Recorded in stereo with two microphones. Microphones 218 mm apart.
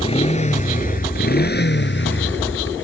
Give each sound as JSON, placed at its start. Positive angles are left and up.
{"t": 0.0, "sound": "a motorcycle", "side_deg": 25}